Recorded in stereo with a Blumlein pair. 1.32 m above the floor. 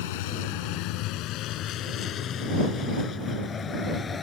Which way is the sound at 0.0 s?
50° left.